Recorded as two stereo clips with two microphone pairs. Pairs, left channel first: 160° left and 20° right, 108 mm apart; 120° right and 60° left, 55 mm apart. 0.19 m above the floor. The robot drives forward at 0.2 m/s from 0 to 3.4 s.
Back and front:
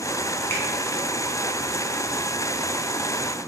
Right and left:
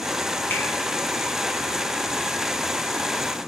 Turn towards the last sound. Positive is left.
turn(degrees=-160)